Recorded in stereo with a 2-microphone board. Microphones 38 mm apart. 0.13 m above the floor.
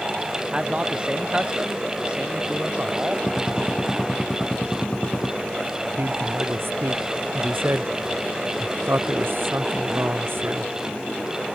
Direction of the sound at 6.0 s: 75° right (ahead or behind).